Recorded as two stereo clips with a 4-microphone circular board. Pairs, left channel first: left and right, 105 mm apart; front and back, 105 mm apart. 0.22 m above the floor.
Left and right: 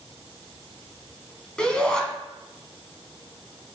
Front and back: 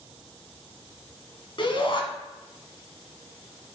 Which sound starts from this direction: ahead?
A shout, at 1.6 s.